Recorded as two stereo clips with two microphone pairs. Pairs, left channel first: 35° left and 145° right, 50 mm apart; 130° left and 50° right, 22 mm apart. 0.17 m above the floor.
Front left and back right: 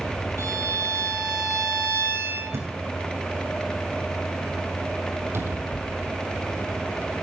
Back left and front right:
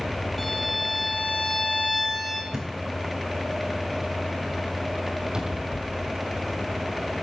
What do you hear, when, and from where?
0.4 s a violin: 145° right, 5.5 m
2.5 s a thud: 120° right, 6 m
5.3 s a cupboard door: 110° right, 3 m